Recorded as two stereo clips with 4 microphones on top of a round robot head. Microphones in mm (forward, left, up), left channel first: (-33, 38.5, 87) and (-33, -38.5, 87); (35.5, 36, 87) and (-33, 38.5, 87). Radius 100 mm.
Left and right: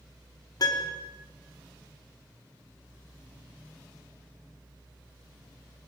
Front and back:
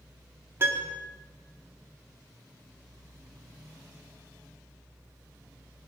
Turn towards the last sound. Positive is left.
turn(degrees=125)